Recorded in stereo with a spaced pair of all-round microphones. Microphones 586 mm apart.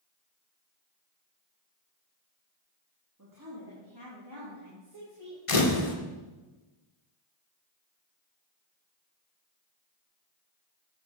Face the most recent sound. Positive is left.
turn(degrees=60)  # may be behind; listen again after turning